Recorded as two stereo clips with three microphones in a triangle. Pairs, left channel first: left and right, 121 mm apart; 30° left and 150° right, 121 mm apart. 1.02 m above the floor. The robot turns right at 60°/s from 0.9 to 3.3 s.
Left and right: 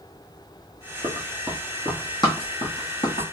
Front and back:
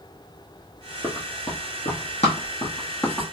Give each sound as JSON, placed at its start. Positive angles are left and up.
{"t": 1.0, "sound": "running footsteps", "azimuth_deg": -40, "distance_m": 1.4}